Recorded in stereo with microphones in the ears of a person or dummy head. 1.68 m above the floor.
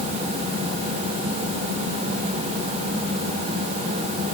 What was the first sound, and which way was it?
Only background noise.